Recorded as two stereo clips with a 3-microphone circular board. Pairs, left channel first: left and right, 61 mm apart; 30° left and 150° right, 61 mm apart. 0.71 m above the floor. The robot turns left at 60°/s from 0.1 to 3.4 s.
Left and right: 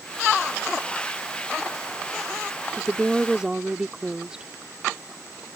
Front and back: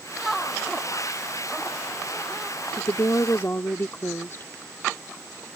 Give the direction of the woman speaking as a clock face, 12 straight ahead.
11 o'clock.